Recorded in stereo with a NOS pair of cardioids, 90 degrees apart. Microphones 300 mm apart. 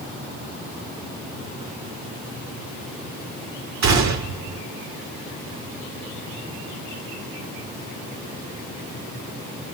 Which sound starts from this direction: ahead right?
A gunshot, at 3.8 s.